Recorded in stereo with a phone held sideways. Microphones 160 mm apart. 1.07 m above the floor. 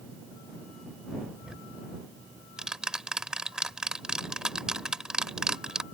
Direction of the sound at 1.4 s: 5° right (ahead or behind).